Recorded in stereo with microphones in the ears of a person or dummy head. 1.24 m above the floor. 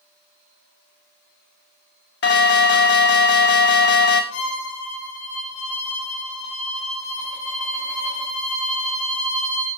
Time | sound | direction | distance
2.2 | an alarm | 60° left (ahead or behind) | 1.6 m
4.3 | a violin | 85° left | 4.5 m